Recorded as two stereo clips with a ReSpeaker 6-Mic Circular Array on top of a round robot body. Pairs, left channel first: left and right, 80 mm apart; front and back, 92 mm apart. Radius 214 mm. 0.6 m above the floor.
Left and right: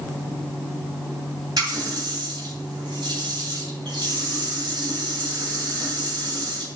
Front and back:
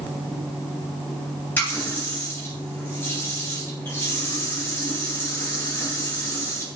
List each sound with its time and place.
1.6 s a running tap: 65° right, 3.5 m